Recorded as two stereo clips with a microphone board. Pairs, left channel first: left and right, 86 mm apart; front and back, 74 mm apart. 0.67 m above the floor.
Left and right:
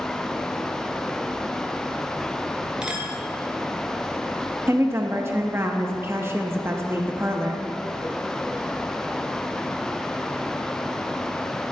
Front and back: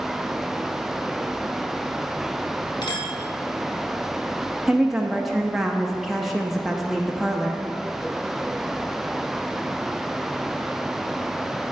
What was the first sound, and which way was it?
A clink, 10° right.